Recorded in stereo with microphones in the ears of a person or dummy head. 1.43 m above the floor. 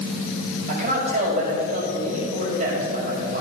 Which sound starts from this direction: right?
A man speaking, at 0.7 s.